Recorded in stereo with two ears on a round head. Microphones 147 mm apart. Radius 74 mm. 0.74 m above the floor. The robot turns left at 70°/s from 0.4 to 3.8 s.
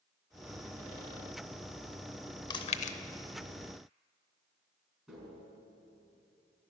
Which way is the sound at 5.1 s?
Centre (ahead or behind).